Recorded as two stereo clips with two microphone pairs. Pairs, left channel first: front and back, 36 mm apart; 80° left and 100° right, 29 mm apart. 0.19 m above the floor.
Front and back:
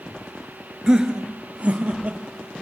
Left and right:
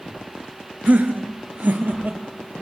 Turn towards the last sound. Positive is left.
turn(degrees=-130)